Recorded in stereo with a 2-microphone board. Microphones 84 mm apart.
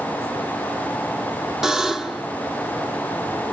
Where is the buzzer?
5° right (ahead or behind), 1.1 m.